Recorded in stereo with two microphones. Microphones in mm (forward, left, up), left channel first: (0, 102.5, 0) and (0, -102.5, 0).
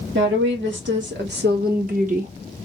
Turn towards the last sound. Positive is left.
turn(degrees=-35)  # may be behind; listen again after turning